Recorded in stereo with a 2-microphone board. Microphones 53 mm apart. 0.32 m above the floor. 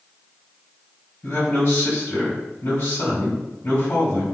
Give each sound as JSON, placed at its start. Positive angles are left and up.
{"t": 1.2, "sound": "a man speaking", "side_deg": 50, "distance_m": 1.8}